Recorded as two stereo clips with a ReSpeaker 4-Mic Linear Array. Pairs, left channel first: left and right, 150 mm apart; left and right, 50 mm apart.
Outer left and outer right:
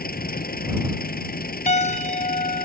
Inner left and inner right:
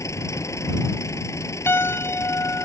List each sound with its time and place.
0.0 s an engine running: 85° left
1.7 s a piano: 50° left (ahead or behind)